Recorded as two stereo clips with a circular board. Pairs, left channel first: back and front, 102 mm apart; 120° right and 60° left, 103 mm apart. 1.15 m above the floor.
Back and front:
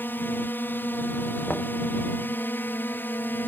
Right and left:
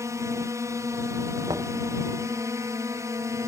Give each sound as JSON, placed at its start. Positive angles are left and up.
{"t": 0.0, "sound": "a drone", "azimuth_deg": 115}
{"t": 1.5, "sound": "knocking", "azimuth_deg": 105}